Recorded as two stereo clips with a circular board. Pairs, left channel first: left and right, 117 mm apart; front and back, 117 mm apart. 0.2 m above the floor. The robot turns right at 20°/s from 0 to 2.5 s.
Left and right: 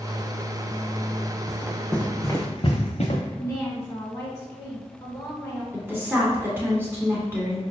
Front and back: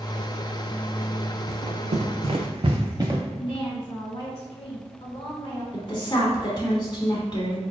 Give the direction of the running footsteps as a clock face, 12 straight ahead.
5 o'clock.